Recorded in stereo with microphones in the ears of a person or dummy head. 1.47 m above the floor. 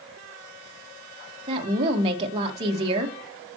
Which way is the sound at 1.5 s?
30° right (ahead or behind).